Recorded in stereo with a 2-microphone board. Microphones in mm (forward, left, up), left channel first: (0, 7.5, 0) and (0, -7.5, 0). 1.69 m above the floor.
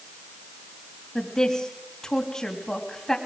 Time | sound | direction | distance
1.1 | a woman speaking | 45° left (ahead or behind) | 3 m